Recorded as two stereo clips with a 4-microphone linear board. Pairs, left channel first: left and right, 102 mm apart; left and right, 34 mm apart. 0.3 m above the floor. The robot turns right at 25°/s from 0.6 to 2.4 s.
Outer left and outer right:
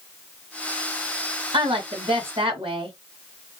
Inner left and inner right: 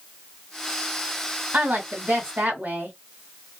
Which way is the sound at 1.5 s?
55° right (ahead or behind).